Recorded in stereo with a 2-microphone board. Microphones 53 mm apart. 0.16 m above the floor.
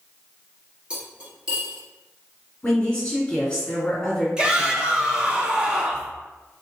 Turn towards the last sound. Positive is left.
turn(degrees=-15)  # may be behind; listen again after turning